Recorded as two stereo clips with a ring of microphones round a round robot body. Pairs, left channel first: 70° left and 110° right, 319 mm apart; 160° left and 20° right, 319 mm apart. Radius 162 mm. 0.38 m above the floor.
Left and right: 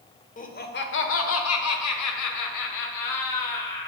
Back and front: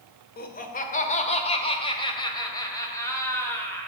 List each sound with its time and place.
0.4 s laughter: 115° left, 1.4 m; by 3.9 s 75° left, 3 m